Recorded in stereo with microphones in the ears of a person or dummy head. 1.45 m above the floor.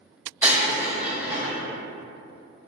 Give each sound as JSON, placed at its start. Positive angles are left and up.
{"t": 0.4, "sound": "breaking glass", "side_deg": -15, "distance_m": 1.0}